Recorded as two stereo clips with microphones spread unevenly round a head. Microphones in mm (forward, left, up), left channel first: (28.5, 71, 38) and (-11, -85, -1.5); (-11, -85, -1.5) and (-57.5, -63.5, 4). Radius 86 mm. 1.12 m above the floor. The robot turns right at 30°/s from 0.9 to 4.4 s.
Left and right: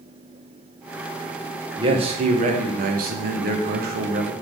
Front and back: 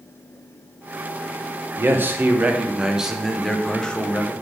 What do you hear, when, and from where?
1.8 s a man speaking: 160° right, 0.8 m; by 4.3 s 85° right, 0.8 m